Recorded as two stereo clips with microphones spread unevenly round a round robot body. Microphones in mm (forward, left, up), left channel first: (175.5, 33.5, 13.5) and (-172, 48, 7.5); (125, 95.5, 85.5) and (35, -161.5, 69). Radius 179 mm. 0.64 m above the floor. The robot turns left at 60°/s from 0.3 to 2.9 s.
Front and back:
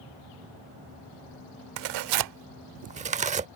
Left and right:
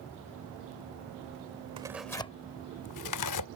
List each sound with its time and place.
1.8 s tearing paper: 175° left; by 3.5 s 105° left